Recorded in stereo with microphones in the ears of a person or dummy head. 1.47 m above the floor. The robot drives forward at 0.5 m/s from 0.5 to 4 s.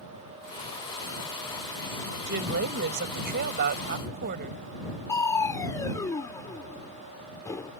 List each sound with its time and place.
2.3 s a woman speaking: 65° right (ahead or behind); by 4.6 s 60° right (ahead or behind)
5.1 s crushing: 15° left (ahead or behind)